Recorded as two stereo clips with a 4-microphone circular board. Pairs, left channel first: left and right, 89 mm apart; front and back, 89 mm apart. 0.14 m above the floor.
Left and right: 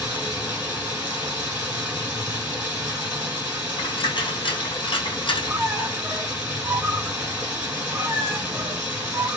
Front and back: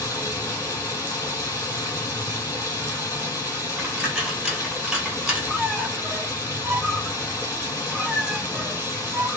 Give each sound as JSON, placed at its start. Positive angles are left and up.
{"t": 0.0, "sound": "running water", "azimuth_deg": -30, "distance_m": 1.5}
{"t": 3.8, "sound": "a dropped coin", "azimuth_deg": 100, "distance_m": 1.3}
{"t": 5.5, "sound": "a squeak", "azimuth_deg": -105, "distance_m": 0.5}